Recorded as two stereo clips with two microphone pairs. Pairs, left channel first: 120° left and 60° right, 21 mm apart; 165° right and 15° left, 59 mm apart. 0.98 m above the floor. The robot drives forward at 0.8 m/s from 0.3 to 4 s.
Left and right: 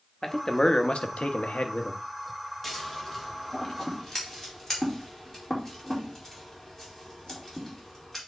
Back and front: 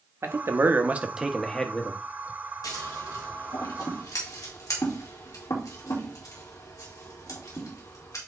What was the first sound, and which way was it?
A man speaking, 50° left.